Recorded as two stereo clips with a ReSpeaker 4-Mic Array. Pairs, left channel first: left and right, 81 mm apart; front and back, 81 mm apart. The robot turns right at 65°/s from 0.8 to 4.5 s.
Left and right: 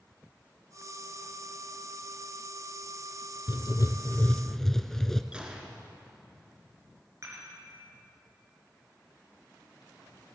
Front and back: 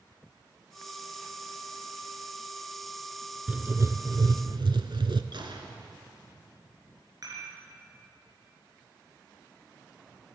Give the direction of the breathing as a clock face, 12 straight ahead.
I don't hear breathing.